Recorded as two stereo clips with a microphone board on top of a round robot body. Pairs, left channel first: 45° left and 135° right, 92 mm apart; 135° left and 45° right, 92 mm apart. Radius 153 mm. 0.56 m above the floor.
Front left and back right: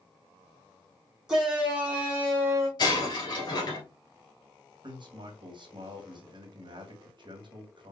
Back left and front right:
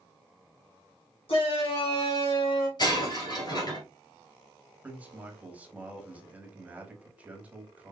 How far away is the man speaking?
About 1.5 m.